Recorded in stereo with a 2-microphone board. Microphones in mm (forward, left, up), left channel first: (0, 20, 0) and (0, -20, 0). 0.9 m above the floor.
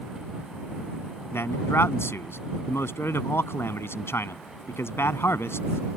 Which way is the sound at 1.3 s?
80° left.